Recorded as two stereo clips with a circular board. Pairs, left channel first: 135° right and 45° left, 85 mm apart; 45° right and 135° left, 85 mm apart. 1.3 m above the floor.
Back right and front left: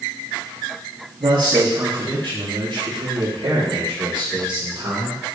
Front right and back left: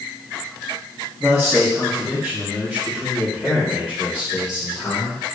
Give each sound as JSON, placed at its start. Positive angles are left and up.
{"t": 1.2, "sound": "a man speaking", "azimuth_deg": 55, "distance_m": 2.0}